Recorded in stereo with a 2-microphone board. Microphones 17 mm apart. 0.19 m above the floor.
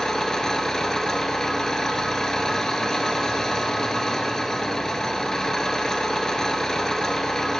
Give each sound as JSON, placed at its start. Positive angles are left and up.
{"t": 0.0, "sound": "an engine running", "side_deg": 35, "distance_m": 0.7}